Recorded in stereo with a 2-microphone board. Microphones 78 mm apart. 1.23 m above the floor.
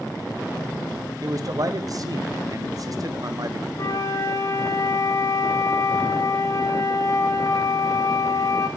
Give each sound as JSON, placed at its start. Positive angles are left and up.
{"t": 1.2, "sound": "a man speaking", "side_deg": -50, "distance_m": 0.5}
{"t": 3.8, "sound": "a flute", "side_deg": 45, "distance_m": 0.7}